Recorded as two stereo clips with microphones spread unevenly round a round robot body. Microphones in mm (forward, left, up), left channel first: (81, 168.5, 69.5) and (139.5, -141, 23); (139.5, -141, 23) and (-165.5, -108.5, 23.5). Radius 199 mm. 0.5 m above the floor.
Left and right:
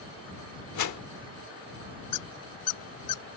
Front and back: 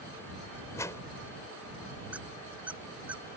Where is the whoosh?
75° left.